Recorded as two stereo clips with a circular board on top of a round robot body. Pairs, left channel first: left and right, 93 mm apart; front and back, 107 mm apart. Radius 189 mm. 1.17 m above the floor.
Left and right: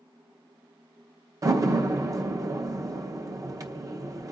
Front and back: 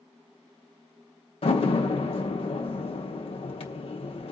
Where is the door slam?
35° right, 0.9 m.